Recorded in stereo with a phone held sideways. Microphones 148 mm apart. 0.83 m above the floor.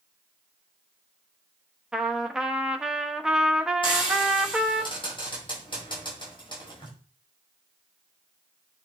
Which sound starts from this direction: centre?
A trumpet, at 1.9 s.